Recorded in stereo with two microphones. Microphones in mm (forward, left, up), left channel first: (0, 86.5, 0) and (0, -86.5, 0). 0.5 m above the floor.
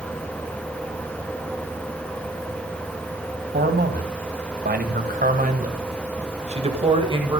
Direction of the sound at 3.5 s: 70° right (ahead or behind).